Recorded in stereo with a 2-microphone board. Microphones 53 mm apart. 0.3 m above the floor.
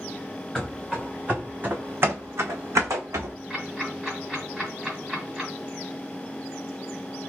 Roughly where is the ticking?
Centre.